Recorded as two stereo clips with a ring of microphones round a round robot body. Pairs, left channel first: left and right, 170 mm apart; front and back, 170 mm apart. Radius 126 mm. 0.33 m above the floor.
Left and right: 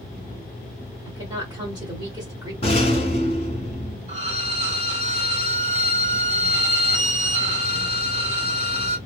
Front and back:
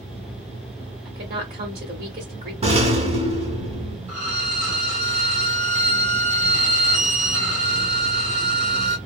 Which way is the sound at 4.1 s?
130° right.